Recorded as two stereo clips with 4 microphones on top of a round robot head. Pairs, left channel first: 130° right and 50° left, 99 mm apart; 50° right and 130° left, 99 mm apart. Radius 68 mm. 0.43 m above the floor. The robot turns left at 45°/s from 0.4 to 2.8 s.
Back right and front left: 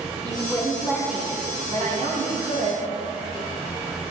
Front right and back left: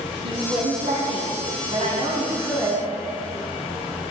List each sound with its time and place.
0.2 s a woman speaking: 160° left, 5.5 m; by 2.9 s 50° left, 5.5 m